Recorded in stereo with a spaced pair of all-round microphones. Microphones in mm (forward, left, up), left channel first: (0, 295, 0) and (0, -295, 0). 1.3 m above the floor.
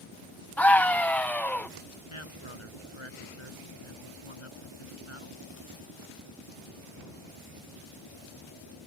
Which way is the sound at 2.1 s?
55° left (ahead or behind).